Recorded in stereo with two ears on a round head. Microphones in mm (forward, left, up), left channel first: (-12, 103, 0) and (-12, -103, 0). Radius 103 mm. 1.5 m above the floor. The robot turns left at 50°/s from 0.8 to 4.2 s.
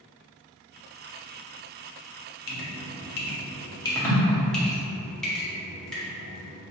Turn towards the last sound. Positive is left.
turn(degrees=5)  # may be behind; listen again after turning